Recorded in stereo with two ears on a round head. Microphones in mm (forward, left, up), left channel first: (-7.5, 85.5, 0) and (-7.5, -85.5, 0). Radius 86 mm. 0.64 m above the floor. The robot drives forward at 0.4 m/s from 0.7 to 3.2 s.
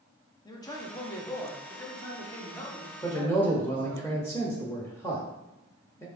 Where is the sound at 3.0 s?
15° left (ahead or behind), 0.8 m.